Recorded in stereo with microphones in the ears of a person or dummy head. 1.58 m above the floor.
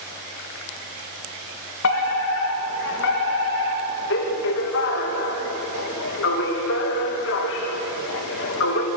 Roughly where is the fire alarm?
Left.